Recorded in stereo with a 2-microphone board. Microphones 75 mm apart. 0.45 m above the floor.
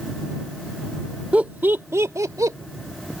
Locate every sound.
1.3 s laughter: 15° right (ahead or behind); by 2.6 s 50° right (ahead or behind)